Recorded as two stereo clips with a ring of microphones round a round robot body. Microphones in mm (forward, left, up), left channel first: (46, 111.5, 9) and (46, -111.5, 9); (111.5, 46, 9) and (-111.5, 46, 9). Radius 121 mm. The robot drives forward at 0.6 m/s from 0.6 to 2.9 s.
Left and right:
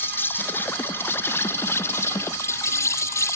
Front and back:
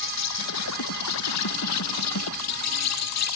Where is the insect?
10° left.